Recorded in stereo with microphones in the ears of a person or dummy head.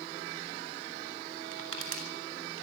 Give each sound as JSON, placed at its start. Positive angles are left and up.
{"t": 1.5, "sound": "crushing", "side_deg": -85, "distance_m": 4.0}